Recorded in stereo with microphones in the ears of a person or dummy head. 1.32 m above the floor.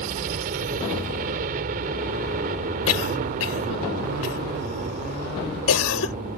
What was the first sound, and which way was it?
A helicopter, 45° right (ahead or behind).